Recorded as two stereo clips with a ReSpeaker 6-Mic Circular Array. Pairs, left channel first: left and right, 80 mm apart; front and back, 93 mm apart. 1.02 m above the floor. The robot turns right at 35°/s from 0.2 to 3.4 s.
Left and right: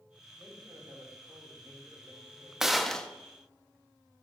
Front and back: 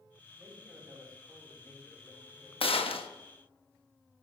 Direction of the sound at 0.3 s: 120° right.